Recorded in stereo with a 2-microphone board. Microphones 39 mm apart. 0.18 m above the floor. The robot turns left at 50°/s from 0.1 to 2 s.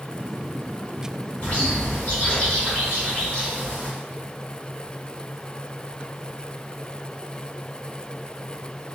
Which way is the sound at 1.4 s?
35° left (ahead or behind).